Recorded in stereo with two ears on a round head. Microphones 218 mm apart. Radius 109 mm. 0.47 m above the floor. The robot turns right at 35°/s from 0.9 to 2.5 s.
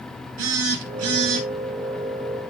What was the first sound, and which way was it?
A phone buzzing, 60° right (ahead or behind).